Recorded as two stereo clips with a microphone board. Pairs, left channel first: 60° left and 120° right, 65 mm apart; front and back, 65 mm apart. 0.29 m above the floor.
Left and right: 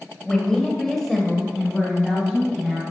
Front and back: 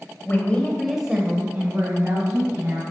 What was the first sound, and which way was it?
A woman speaking, 10° right.